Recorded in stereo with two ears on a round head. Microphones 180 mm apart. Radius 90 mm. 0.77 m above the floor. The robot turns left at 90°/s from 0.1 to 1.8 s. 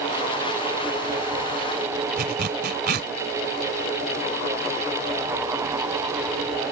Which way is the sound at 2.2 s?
50° right (ahead or behind).